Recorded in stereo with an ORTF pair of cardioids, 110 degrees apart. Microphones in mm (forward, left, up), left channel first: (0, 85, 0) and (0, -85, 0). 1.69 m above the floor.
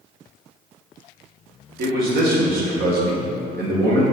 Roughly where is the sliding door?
I don't hear a sliding door.